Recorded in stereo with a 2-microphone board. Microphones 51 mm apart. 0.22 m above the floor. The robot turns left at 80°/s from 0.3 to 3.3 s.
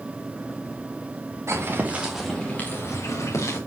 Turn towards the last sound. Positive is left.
turn(degrees=85)